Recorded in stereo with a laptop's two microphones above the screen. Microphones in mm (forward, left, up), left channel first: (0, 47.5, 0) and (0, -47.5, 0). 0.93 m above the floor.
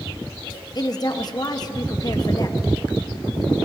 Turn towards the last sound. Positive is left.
turn(degrees=45)  # may be behind; listen again after turning